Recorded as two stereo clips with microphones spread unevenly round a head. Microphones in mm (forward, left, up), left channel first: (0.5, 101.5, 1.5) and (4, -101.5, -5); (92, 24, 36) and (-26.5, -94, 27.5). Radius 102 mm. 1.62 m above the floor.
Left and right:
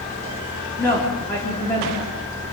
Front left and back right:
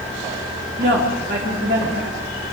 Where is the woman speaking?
170° left, 3 m.